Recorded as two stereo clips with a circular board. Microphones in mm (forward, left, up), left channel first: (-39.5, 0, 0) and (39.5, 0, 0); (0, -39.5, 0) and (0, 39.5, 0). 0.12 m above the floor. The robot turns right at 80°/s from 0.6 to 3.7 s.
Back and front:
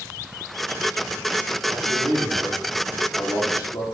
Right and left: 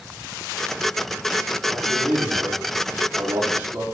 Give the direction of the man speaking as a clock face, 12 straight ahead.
12 o'clock.